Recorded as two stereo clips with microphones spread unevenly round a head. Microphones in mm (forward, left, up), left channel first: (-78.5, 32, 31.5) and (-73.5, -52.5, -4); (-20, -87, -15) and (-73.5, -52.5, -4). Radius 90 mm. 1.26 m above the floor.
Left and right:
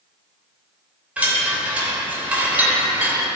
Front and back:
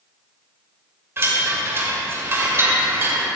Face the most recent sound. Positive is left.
turn(degrees=-170)